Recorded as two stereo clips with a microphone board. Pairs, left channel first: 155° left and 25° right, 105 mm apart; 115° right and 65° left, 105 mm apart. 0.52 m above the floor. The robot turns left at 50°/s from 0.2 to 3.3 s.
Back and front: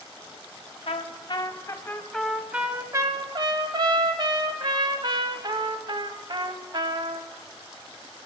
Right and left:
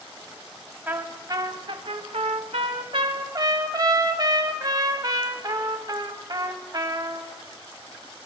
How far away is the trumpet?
About 0.9 m.